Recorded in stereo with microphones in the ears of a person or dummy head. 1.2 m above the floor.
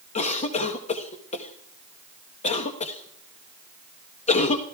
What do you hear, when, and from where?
0.1 s a cough: 40° left (ahead or behind), 0.9 m